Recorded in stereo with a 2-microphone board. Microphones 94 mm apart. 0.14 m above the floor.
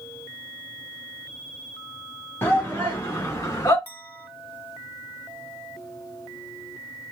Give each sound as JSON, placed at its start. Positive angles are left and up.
{"t": 2.4, "sound": "a shout", "side_deg": 25, "distance_m": 2.5}
{"t": 3.9, "sound": "a clink", "side_deg": 20, "distance_m": 1.0}